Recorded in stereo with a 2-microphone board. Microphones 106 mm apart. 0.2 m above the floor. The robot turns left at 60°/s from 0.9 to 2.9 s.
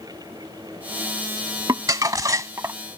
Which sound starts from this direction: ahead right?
Crumpling, at 1.7 s.